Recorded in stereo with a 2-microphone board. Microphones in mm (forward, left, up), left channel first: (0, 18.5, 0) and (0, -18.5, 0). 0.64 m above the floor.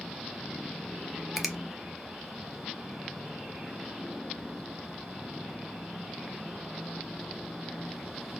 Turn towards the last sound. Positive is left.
turn(degrees=-5)  # may be behind; listen again after turning